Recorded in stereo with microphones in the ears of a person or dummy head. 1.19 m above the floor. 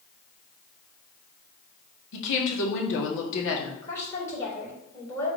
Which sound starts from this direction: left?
A woman speaking, at 2.1 s.